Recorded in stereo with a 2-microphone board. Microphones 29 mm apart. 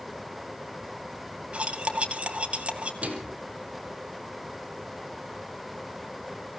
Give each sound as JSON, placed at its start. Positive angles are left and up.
{"t": 1.5, "sound": "cutlery clinking", "side_deg": -45, "distance_m": 1.8}
{"t": 3.0, "sound": "a microwave", "side_deg": -50, "distance_m": 3.5}